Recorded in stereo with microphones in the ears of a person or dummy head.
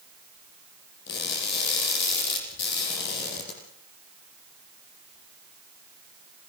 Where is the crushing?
65° left (ahead or behind), 7 m.